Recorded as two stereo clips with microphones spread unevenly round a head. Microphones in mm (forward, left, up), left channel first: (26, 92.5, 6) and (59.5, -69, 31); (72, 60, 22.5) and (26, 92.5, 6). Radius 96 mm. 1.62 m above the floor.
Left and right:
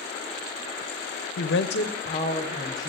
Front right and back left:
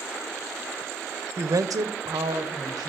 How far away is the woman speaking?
About 0.6 m.